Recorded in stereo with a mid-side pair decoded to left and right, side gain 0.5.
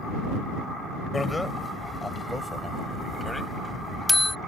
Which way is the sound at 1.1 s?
15° left.